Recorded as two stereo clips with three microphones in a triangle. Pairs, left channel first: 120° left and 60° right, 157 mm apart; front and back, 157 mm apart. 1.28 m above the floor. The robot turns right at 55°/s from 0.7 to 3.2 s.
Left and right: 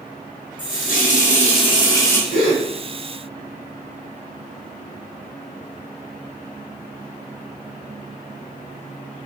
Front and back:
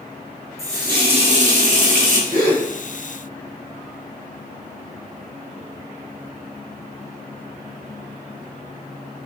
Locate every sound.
0.6 s a running tap: 115° left, 0.9 m; by 2.2 s 165° right, 0.9 m
2.3 s a gasp: 145° left, 1.8 m; by 2.6 s 165° left, 1.8 m